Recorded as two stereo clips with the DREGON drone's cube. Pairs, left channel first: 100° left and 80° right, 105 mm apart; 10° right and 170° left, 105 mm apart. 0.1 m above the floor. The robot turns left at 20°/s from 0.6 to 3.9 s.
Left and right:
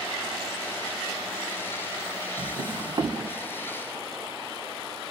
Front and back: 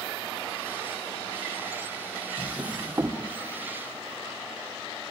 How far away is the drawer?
About 2 m.